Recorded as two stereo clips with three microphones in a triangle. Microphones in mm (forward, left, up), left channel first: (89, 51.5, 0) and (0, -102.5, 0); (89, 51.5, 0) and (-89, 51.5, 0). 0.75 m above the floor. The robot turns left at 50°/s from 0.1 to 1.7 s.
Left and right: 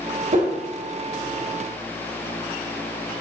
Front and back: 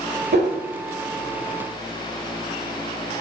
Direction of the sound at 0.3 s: 160° right.